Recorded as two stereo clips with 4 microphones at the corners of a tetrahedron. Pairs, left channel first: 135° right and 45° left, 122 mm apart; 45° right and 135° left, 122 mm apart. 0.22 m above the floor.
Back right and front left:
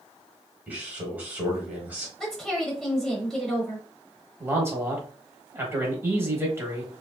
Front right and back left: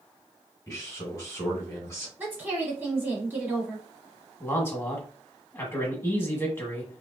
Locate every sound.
0.7 s a man speaking: 15° right, 1.1 m
2.2 s a woman speaking: 150° left, 1.0 m
4.4 s a man speaking: straight ahead, 1.1 m